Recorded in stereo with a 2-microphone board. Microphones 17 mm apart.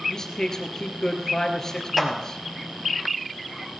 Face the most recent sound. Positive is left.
turn(degrees=-5)  # may be behind; listen again after turning